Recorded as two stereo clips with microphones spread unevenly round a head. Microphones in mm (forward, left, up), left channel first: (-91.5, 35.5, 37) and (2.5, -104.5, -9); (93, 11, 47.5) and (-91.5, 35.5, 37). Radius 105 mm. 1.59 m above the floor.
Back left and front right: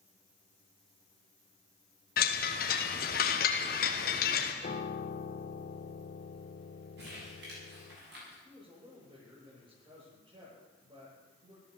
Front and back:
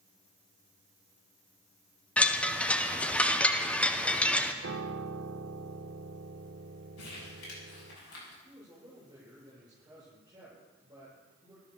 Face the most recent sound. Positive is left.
turn(degrees=-115)